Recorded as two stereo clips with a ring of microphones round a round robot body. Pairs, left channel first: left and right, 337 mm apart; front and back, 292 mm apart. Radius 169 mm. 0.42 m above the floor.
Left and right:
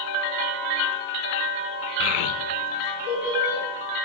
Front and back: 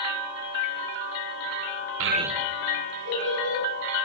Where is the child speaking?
145° left, 0.6 m; by 3.6 s 35° left, 2.5 m.